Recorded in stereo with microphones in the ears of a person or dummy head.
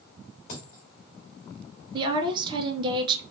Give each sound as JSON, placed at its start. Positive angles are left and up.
{"t": 0.5, "sound": "a dropped coin", "side_deg": 50, "distance_m": 1.3}
{"t": 1.9, "sound": "a woman speaking", "side_deg": -30, "distance_m": 0.8}